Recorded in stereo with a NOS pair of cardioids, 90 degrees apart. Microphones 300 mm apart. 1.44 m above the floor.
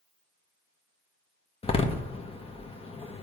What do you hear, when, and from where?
1.6 s a door slam: 20° left, 1.3 m